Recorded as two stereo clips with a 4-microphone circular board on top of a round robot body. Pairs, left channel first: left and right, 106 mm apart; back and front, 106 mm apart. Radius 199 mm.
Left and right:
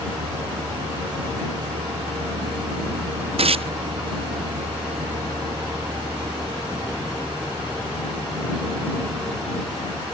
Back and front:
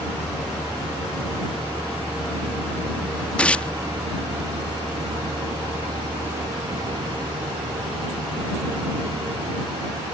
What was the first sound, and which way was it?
A vehicle, 90° right.